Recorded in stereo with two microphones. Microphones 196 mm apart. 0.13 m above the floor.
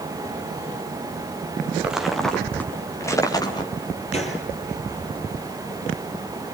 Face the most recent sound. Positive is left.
turn(degrees=30)  # may be behind; listen again after turning